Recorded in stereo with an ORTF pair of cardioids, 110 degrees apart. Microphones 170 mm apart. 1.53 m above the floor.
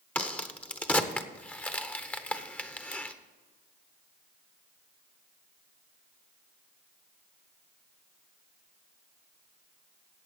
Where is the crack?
10° left, 0.9 m.